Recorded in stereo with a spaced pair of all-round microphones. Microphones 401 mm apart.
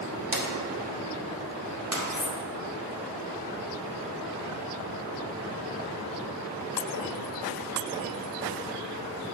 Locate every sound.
0.3 s a drawer: 50° right (ahead or behind), 1.3 m
2.1 s cutlery clinking: 50° left (ahead or behind), 0.6 m